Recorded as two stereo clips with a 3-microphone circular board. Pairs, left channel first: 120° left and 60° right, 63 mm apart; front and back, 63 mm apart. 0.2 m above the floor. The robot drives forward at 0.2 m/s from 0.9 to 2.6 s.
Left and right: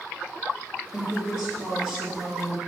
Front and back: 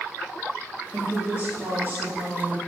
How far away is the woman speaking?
About 2.5 m.